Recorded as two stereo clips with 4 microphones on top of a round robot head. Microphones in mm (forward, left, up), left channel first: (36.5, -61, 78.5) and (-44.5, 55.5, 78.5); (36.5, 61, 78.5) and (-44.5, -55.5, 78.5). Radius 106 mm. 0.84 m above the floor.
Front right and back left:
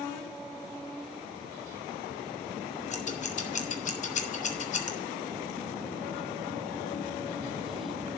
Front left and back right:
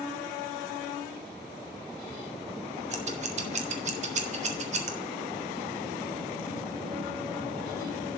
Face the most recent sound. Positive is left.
turn(degrees=-90)